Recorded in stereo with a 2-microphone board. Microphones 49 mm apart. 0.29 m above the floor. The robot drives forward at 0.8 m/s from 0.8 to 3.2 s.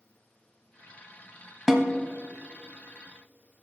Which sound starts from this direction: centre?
A snare drum, at 1.7 s.